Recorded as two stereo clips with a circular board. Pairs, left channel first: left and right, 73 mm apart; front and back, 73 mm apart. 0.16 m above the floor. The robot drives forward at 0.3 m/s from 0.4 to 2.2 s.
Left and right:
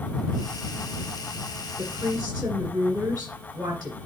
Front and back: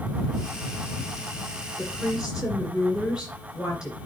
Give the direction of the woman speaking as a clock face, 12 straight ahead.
3 o'clock.